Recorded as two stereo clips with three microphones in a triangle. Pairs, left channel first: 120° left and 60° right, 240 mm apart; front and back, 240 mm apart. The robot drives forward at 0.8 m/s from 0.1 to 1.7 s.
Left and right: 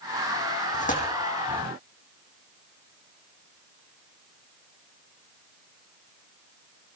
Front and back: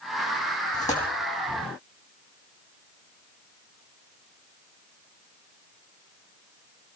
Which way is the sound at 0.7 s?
60° left.